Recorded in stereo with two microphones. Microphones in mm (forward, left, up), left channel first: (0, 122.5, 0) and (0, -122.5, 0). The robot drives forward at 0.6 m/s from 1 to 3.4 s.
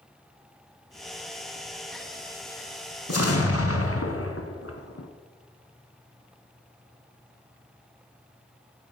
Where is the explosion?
75° left (ahead or behind), 1.9 m; by 5.1 s 70° left (ahead or behind), 2.0 m.